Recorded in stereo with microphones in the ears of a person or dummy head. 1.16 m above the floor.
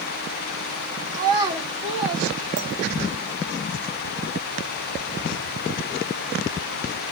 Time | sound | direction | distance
1.1 | a child speaking | 15° right (ahead or behind) | 1.0 m
2.6 | a clink | 80° right | 0.7 m